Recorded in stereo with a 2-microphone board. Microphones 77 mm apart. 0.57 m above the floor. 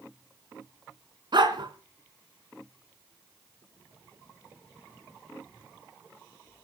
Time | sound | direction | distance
1.3 | a dog barking | 65° right (ahead or behind) | 2 m